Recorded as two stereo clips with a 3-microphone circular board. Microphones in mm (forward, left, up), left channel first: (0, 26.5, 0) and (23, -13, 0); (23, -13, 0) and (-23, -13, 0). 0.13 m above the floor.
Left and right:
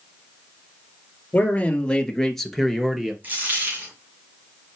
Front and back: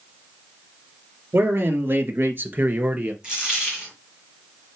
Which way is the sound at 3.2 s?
110° right.